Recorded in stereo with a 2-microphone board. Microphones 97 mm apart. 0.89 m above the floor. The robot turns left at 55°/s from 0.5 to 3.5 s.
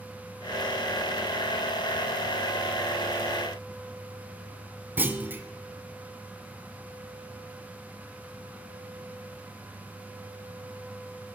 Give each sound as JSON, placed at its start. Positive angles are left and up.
{"t": 5.0, "sound": "a clunk", "side_deg": -20, "distance_m": 0.6}